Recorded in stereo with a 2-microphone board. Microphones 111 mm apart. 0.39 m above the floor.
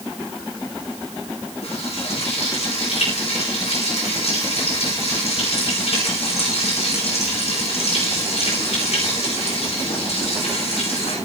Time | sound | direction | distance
1.6 | frying | 65° left (ahead or behind) | 10 m